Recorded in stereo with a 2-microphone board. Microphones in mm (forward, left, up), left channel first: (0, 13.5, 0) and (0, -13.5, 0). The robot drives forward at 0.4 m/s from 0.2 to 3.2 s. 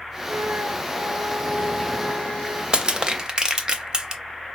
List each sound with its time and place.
0.3 s a flute: 85° right, 0.6 m; by 2.6 s 35° right (ahead or behind), 1.1 m
2.7 s crushing: 35° right (ahead or behind), 0.5 m; by 4.2 s 30° right (ahead or behind), 0.6 m